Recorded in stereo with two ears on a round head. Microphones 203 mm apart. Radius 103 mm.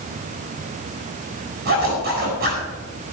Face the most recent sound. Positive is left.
turn(degrees=-45)  # may be behind; listen again after turning